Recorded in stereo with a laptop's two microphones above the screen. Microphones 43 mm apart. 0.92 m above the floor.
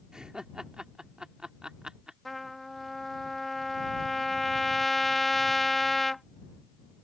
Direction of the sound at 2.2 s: 5° left (ahead or behind).